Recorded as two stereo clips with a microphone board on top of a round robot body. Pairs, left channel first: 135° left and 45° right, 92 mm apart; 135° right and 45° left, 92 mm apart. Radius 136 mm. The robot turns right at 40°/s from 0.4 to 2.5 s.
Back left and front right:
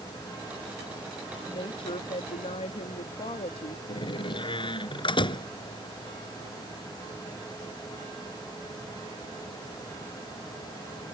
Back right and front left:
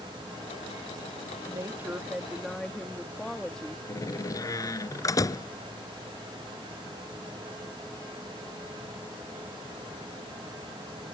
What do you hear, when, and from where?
1.5 s a woman speaking: 100° left; by 3.8 s 140° left
3.9 s a door slam: 170° left